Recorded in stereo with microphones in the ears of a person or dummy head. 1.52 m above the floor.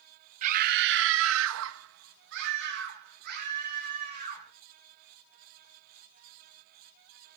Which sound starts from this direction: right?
A scream, at 0.4 s.